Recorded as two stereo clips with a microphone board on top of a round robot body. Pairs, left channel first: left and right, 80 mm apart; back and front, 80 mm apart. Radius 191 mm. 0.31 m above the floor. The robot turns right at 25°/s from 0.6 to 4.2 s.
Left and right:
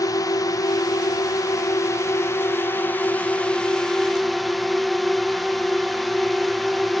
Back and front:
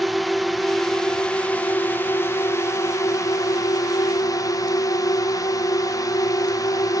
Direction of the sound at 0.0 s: 90° left.